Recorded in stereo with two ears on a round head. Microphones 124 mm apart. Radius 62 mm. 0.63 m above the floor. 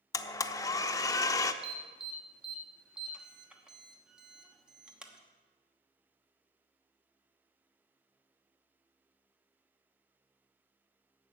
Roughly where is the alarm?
Centre.